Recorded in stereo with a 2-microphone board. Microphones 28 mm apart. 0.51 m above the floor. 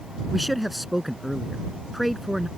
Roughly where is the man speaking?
Centre.